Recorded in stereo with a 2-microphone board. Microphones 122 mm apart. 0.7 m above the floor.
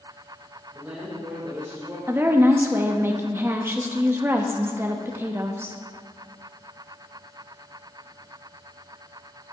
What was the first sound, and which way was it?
A woman speaking, 10° right (ahead or behind).